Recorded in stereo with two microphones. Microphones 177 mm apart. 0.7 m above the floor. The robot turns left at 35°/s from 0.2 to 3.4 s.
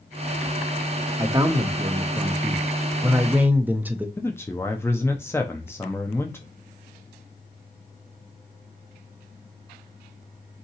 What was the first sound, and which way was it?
A man speaking, 20° right (ahead or behind).